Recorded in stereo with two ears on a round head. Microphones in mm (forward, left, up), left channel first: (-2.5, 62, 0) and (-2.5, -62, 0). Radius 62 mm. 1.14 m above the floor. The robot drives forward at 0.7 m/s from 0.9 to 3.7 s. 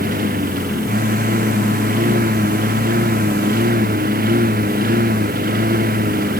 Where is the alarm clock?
I don't hear an alarm clock.